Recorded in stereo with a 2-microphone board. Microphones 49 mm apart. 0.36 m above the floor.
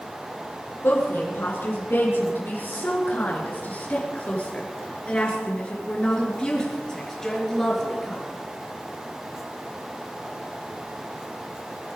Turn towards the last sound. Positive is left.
turn(degrees=5)  # may be behind; listen again after turning